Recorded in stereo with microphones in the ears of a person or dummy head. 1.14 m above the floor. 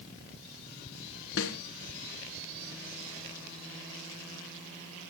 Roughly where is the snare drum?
Left.